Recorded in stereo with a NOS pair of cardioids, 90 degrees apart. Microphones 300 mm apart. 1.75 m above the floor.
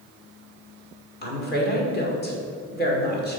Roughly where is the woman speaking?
Ahead left.